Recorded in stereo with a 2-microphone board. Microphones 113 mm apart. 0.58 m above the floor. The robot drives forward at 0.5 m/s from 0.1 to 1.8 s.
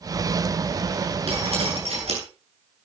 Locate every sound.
1.3 s dripping: 65° right (ahead or behind), 8.5 m